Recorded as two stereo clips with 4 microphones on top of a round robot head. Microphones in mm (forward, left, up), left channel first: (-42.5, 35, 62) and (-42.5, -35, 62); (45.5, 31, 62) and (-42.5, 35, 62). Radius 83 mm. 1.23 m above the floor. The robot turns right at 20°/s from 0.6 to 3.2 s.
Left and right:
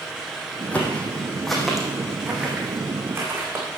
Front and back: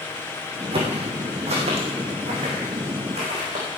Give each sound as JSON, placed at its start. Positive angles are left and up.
{"t": 0.7, "sound": "footsteps", "azimuth_deg": 160, "distance_m": 3.5}